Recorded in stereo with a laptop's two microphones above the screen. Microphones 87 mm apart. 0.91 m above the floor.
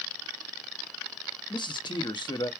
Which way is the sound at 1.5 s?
60° left (ahead or behind).